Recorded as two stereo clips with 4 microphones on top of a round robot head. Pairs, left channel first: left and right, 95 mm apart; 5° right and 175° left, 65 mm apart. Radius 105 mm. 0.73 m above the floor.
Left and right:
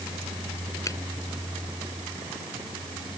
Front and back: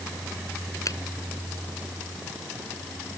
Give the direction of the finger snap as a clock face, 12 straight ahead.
11 o'clock.